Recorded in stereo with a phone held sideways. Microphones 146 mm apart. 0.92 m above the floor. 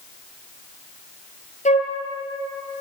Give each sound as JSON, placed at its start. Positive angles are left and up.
{"t": 1.6, "sound": "a flute", "side_deg": 55, "distance_m": 4.0}